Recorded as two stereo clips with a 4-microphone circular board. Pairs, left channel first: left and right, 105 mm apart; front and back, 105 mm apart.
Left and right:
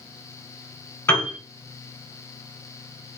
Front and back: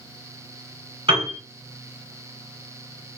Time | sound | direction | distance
1.1 | a piano | 160° left | 1.7 m